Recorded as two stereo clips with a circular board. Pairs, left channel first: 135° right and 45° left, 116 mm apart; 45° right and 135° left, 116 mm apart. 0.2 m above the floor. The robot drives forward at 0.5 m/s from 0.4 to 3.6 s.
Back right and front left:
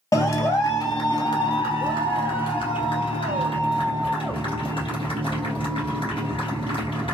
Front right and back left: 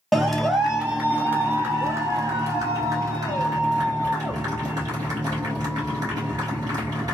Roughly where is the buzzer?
No buzzer in this recording.